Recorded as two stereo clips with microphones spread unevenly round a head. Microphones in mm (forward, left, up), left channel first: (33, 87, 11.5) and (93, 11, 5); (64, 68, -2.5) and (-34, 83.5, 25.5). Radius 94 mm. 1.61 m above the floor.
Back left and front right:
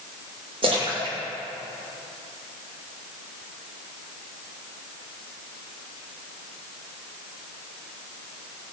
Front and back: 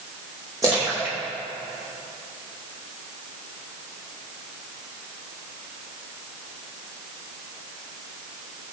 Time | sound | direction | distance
0.6 | a splash | 115° right | 2.5 m